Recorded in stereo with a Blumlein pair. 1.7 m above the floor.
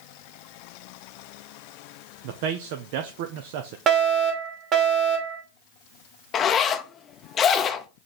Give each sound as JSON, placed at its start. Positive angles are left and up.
{"t": 2.2, "sound": "a man speaking", "azimuth_deg": -50, "distance_m": 0.9}
{"t": 3.9, "sound": "a fire alarm", "azimuth_deg": -30, "distance_m": 2.5}
{"t": 6.3, "sound": "a zipper", "azimuth_deg": 25, "distance_m": 0.7}